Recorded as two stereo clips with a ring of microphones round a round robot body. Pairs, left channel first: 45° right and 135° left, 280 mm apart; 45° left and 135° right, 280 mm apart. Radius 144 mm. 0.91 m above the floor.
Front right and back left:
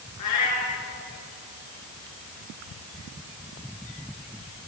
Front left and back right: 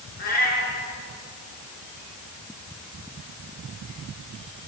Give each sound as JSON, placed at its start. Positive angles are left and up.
{"t": 0.2, "sound": "a cat meowing", "azimuth_deg": -15, "distance_m": 6.5}